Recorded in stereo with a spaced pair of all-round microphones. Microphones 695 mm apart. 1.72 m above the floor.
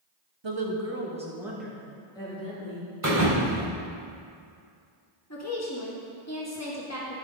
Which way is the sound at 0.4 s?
40° right (ahead or behind).